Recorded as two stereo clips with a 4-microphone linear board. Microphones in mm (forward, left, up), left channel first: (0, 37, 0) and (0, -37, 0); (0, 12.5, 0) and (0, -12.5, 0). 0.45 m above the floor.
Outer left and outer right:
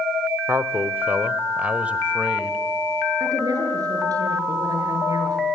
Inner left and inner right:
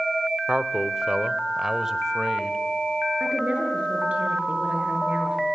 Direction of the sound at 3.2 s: 55° right (ahead or behind).